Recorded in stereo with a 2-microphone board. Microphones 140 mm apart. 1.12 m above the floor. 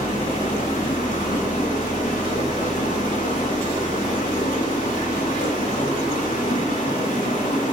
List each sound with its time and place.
0.0 s running water: 75° left (ahead or behind), 1.6 m